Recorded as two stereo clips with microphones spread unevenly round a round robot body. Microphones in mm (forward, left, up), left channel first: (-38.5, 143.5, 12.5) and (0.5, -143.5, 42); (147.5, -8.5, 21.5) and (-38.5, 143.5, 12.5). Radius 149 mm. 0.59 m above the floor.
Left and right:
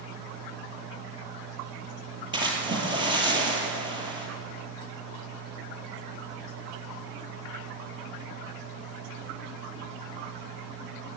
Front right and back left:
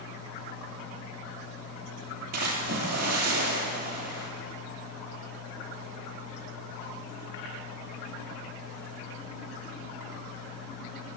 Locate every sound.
2.3 s a splash: 155° right, 2.5 m